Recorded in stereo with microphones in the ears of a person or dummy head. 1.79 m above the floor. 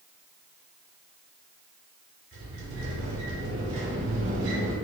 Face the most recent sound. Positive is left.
turn(degrees=-75)  # may be behind; listen again after turning